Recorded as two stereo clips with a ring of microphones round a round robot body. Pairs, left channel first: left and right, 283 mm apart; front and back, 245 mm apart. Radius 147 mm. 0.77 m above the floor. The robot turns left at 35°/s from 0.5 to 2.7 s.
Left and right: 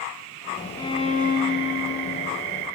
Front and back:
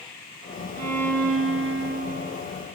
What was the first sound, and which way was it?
A violin, 170° left.